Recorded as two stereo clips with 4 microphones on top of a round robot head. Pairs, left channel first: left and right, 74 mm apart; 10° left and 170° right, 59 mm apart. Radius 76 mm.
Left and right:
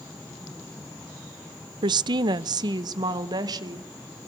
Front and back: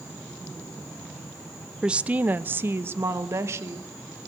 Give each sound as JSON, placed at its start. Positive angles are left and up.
{"t": 1.8, "sound": "a woman speaking", "azimuth_deg": -90, "distance_m": 0.5}